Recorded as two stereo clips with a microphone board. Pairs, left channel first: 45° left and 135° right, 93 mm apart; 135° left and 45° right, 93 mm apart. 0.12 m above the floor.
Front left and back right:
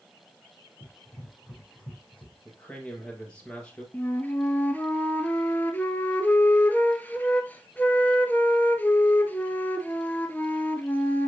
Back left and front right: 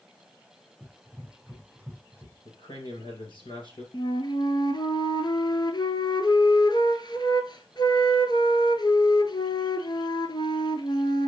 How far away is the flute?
About 0.8 m.